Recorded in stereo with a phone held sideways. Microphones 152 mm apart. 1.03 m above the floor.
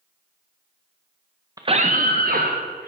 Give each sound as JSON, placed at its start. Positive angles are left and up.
{"t": 1.6, "sound": "a scream", "side_deg": -25, "distance_m": 0.6}